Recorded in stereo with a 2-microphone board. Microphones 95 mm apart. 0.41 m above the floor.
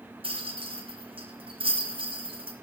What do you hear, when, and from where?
0.2 s a rattle: 70° right (ahead or behind), 2.5 m